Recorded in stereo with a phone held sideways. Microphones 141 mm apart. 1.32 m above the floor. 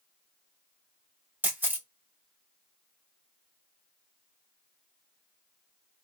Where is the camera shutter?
15° right (ahead or behind), 1.6 m.